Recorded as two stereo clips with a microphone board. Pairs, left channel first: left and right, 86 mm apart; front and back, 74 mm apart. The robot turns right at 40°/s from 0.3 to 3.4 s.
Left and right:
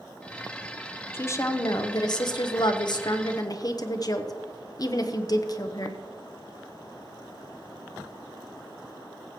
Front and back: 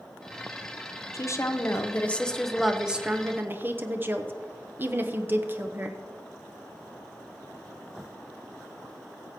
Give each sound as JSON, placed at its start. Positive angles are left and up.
{"t": 1.1, "sound": "a woman speaking", "azimuth_deg": 30, "distance_m": 0.8}